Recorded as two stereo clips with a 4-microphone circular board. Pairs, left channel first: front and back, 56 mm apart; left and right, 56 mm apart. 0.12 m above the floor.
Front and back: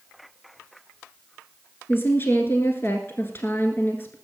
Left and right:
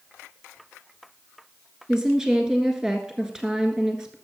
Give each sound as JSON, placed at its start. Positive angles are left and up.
{"t": 1.9, "sound": "a woman speaking", "azimuth_deg": -20, "distance_m": 1.4}